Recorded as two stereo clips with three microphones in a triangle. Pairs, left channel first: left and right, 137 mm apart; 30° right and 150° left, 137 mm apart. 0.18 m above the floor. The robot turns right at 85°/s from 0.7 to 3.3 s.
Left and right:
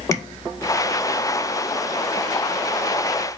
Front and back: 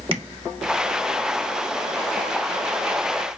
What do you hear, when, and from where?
0.1 s tapping: 145° left, 0.6 m